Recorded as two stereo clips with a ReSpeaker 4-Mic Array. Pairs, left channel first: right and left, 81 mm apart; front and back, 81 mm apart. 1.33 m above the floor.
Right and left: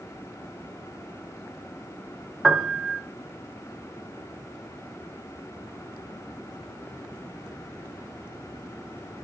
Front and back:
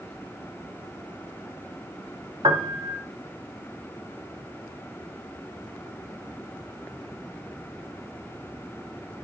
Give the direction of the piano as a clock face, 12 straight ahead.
6 o'clock.